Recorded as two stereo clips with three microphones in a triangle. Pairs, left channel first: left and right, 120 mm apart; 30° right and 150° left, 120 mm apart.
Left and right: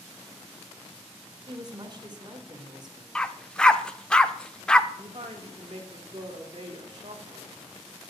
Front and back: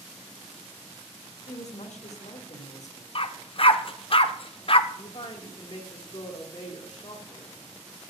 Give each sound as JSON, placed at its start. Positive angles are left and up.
{"t": 1.5, "sound": "a woman speaking", "azimuth_deg": -40, "distance_m": 1.6}
{"t": 3.1, "sound": "a dog barking", "azimuth_deg": 5, "distance_m": 0.5}
{"t": 4.9, "sound": "a woman speaking", "azimuth_deg": -45, "distance_m": 1.8}